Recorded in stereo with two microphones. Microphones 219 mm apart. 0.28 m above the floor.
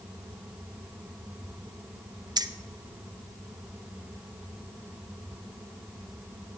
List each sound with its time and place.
2.4 s keys jangling: 20° right (ahead or behind), 0.6 m